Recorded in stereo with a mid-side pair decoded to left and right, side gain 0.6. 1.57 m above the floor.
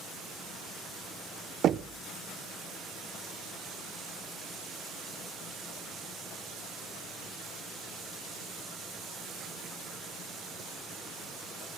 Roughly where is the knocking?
Ahead right.